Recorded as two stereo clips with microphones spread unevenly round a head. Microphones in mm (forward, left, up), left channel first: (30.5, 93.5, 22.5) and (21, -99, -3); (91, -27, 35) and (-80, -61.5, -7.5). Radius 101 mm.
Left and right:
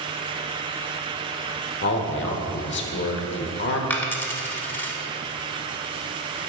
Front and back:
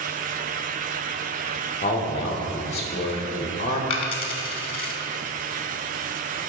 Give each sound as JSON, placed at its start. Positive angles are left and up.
{"t": 1.8, "sound": "a man speaking", "azimuth_deg": 75, "distance_m": 0.8}
{"t": 3.9, "sound": "a dropped coin", "azimuth_deg": 20, "distance_m": 0.8}